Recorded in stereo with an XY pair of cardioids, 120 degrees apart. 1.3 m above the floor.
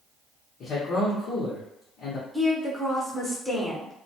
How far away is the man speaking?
About 0.9 m.